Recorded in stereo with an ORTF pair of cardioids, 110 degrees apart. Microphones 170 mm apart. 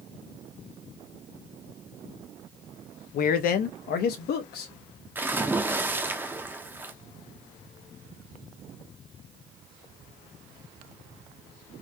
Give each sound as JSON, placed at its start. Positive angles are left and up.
{"t": 3.1, "sound": "a man speaking", "azimuth_deg": 60, "distance_m": 0.8}
{"t": 5.2, "sound": "a splash", "azimuth_deg": -10, "distance_m": 0.8}